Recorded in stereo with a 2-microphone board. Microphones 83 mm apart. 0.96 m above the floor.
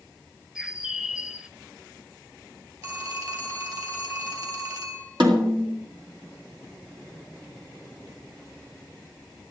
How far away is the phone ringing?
About 4 m.